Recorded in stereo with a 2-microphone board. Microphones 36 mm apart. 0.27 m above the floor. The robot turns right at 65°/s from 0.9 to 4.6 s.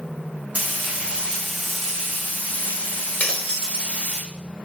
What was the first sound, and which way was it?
Frying, 45° right.